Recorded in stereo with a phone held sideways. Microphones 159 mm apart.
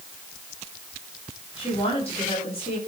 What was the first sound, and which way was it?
A woman speaking, 40° left (ahead or behind).